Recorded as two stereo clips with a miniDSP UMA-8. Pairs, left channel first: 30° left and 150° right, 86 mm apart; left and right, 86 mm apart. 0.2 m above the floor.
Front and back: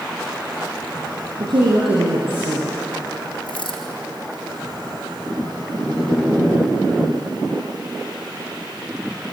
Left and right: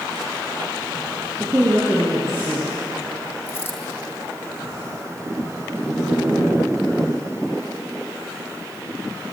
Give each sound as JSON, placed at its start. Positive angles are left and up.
{"t": 1.4, "sound": "a woman speaking", "azimuth_deg": -155, "distance_m": 7.0}
{"t": 3.5, "sound": "a dropped coin", "azimuth_deg": 20, "distance_m": 4.5}